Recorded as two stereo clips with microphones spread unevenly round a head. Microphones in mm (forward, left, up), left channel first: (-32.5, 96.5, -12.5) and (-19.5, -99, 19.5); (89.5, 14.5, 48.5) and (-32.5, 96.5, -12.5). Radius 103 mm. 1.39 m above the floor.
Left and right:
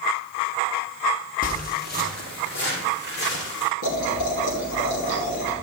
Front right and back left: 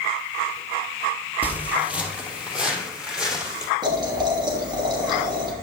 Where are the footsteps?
50° left, 2.0 m; by 3.7 s 55° left, 4.5 m.